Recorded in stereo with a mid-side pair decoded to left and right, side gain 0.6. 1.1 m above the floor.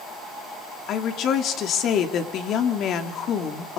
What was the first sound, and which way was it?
A woman speaking, 55° left.